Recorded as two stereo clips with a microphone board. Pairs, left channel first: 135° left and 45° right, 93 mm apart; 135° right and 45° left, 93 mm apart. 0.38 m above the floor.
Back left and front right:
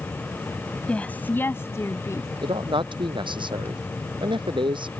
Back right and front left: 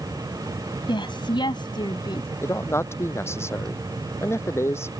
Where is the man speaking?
75° right.